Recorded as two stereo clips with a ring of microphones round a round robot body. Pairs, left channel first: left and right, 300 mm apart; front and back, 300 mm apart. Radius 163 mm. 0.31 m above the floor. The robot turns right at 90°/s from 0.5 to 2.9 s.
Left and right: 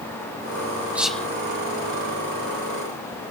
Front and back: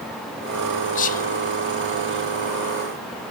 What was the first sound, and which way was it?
Whispering, 15° right.